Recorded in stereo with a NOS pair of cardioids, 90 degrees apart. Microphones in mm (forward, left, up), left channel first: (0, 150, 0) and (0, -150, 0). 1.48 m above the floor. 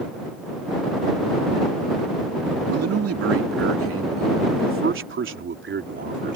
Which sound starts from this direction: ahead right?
A man speaking, at 2.7 s.